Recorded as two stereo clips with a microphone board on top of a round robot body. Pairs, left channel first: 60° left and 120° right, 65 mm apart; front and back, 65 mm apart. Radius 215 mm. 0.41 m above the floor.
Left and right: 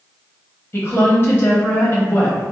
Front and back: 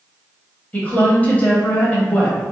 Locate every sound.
0.7 s a woman speaking: 50° left, 1.4 m